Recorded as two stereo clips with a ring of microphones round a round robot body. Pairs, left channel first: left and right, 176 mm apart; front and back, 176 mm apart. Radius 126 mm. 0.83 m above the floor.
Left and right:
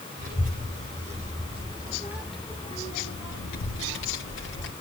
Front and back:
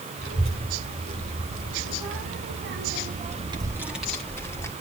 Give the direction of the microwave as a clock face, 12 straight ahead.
No microwave in this recording.